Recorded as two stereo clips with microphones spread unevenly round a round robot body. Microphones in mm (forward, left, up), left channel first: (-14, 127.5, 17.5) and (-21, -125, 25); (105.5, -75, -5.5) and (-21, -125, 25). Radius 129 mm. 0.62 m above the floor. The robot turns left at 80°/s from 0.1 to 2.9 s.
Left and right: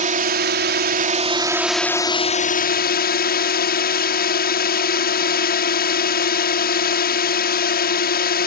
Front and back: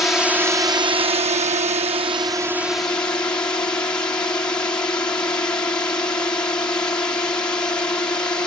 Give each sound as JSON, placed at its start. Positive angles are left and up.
{"t": 0.0, "sound": "a drone", "azimuth_deg": -50}